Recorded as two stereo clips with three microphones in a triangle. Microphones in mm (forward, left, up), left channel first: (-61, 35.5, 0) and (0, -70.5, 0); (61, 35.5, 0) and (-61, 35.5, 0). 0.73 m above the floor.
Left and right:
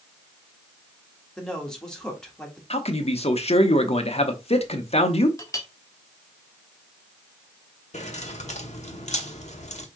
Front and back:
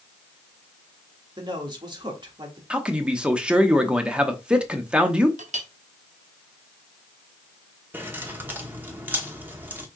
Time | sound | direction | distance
1.4 | a man speaking | 160° right | 1.4 m
2.7 | a man speaking | 100° left | 0.9 m
5.4 | a clink | 175° right | 0.8 m
7.9 | keys jangling | 105° left | 1.0 m